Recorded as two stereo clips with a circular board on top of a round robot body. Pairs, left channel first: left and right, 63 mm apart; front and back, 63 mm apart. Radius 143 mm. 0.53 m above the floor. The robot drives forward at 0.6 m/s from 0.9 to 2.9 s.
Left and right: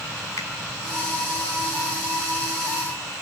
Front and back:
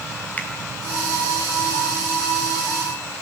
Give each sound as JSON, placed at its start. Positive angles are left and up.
{"t": 0.4, "sound": "a finger snap", "azimuth_deg": 65, "distance_m": 3.5}